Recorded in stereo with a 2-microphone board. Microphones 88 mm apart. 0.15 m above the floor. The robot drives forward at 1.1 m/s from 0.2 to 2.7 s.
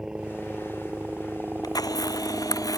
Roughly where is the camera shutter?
Left.